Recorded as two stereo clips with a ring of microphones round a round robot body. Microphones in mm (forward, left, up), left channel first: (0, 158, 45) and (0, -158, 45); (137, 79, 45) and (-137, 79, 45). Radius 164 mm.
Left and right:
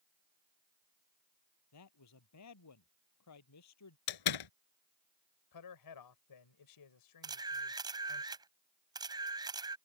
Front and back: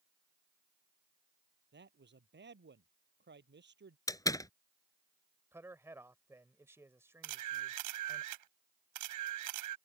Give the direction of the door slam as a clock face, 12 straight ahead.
9 o'clock.